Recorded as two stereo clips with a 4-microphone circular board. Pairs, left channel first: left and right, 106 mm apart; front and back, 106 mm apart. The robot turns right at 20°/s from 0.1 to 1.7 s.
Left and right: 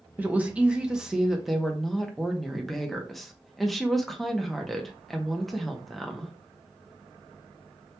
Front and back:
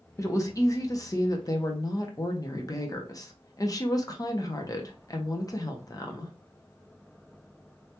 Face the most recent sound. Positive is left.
turn(degrees=0)